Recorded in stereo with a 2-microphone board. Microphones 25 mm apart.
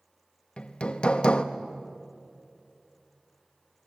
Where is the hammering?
45° left (ahead or behind), 1.0 m.